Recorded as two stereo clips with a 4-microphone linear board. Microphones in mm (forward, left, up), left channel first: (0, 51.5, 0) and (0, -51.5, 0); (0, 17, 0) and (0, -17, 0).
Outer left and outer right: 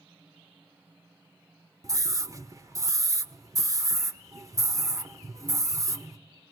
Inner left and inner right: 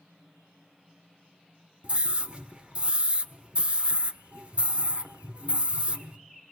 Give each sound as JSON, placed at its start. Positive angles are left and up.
{"t": 1.8, "sound": "a scream", "side_deg": -35, "distance_m": 1.2}